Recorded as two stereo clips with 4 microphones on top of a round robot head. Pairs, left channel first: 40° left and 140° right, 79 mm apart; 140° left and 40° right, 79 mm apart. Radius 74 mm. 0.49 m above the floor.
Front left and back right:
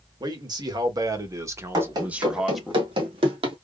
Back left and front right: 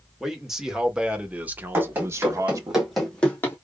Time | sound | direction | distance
0.2 | a man speaking | 125° right | 2 m
1.7 | running footsteps | 105° right | 2.5 m